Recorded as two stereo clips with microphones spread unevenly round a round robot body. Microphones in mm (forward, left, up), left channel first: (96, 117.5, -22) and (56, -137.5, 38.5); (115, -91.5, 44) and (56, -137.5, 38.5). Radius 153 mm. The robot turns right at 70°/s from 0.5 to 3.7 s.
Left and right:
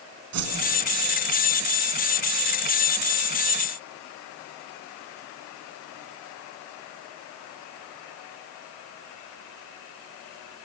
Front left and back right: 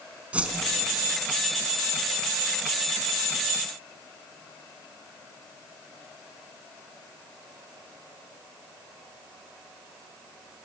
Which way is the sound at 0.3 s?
70° right.